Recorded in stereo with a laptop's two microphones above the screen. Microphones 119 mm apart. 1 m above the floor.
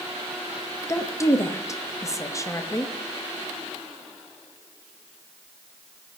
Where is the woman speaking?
25° left (ahead or behind), 1.0 m.